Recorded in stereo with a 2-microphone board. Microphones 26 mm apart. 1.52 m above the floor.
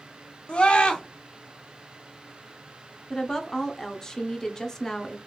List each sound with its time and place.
0.5 s a scream: 45° left (ahead or behind), 1.1 m
3.1 s a woman speaking: 20° left (ahead or behind), 0.8 m